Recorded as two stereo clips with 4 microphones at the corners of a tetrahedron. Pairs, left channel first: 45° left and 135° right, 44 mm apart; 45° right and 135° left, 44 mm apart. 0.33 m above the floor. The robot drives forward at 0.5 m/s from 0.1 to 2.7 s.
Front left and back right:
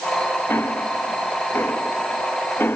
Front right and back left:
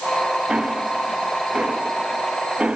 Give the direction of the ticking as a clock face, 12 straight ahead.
10 o'clock.